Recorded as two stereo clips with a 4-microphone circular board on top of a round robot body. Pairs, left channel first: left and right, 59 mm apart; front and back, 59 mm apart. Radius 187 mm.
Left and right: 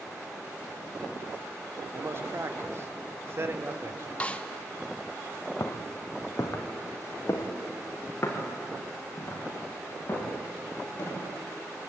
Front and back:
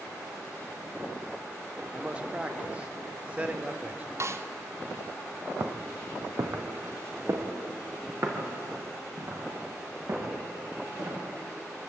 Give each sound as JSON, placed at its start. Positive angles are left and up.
{"t": 1.9, "sound": "a man speaking", "azimuth_deg": -115, "distance_m": 2.0}
{"t": 4.2, "sound": "a snare drum", "azimuth_deg": 155, "distance_m": 1.5}
{"t": 5.6, "sound": "footsteps", "azimuth_deg": 125, "distance_m": 1.4}